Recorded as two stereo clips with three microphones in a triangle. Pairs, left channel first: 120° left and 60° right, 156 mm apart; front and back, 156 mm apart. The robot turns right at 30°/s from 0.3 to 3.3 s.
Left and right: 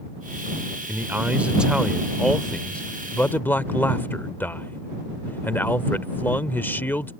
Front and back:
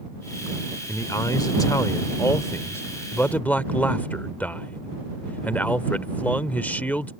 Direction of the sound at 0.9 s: 10° right.